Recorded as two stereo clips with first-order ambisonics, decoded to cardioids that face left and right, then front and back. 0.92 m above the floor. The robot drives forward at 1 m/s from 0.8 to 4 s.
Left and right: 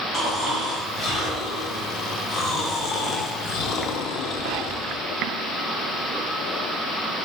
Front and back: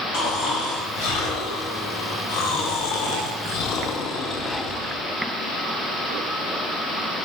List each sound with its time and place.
0.1 s snoring: 15° left, 4 m; by 5.0 s 55° left, 1.5 m